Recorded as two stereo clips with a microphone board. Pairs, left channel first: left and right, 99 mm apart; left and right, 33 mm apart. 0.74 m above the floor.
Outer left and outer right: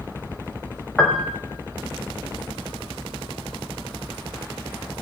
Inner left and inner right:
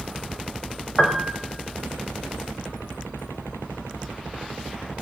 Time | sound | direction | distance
1.0 | a piano | 5° left (ahead or behind) | 0.9 m